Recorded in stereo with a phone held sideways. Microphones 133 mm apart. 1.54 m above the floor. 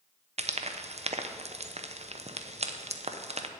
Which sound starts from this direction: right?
Frying, at 0.4 s.